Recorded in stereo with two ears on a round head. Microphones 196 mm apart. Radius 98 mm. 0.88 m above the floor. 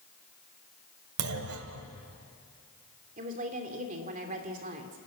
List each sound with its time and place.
1.2 s a clunk: 75° right (ahead or behind), 1.8 m
3.2 s a woman speaking: 35° right (ahead or behind), 2.5 m